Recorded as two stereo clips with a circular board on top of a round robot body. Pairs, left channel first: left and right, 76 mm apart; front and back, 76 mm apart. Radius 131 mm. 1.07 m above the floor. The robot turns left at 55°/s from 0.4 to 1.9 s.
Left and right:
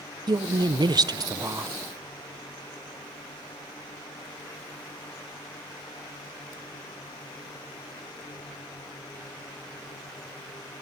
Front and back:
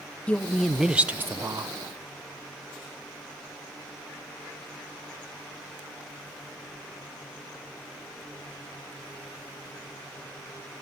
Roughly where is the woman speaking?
Right.